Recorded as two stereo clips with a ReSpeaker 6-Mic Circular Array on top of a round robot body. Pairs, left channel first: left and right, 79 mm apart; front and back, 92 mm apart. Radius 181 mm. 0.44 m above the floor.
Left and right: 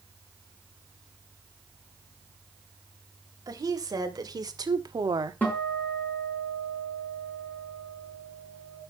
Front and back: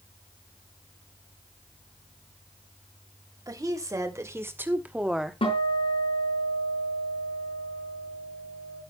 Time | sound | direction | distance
3.5 | a woman speaking | 130° right | 3.5 m
5.4 | a guitar | 20° left | 5.5 m